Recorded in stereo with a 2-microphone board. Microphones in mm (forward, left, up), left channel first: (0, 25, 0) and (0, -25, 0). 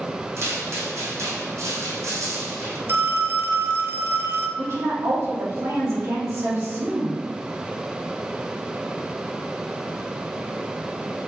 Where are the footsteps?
60° right (ahead or behind), 3 m; by 2.8 s 70° right (ahead or behind), 3 m.